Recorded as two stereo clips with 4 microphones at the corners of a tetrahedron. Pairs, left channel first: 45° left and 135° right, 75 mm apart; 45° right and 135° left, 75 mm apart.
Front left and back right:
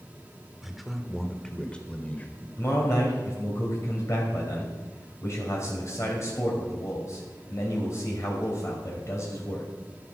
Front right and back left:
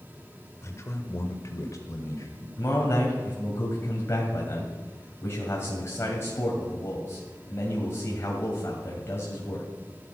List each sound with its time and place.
0.6 s a man speaking: 50° right, 1.6 m; by 2.5 s 15° right, 2 m
2.6 s a man speaking: 5° left, 2.5 m